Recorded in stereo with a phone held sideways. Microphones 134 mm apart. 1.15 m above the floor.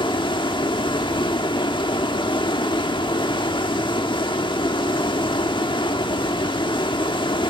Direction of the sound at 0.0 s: 40° left (ahead or behind).